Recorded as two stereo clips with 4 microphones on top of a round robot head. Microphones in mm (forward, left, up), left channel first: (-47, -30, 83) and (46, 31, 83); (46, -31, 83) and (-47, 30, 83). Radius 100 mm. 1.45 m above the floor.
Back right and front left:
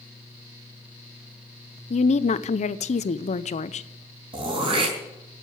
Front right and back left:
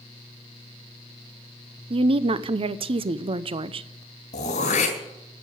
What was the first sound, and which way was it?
A woman speaking, 170° right.